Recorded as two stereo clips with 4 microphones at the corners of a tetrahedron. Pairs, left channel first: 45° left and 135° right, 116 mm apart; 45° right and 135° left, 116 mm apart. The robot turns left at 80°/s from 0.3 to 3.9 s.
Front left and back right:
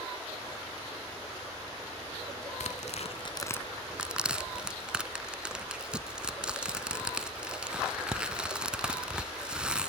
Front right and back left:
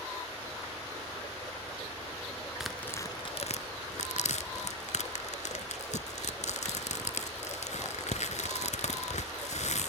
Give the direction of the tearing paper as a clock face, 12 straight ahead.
10 o'clock.